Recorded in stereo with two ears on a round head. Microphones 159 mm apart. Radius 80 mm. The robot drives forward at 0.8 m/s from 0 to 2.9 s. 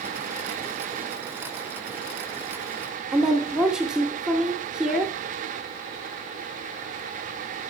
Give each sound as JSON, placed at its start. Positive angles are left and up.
{"t": 3.1, "sound": "a woman speaking", "side_deg": -5, "distance_m": 0.7}